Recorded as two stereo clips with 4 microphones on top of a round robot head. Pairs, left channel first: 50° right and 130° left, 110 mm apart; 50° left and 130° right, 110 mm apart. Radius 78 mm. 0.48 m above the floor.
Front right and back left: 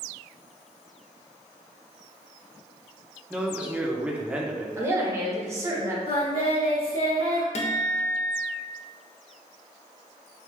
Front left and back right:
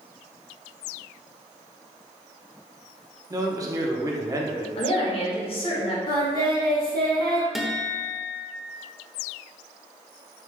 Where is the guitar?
45° right, 0.7 m.